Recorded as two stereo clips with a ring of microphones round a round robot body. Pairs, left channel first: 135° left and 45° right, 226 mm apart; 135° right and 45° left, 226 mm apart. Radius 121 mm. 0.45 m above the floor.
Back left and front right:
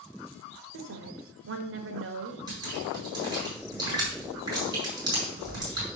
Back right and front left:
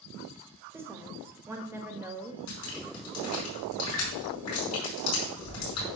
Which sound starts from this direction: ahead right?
A woman speaking, at 0.7 s.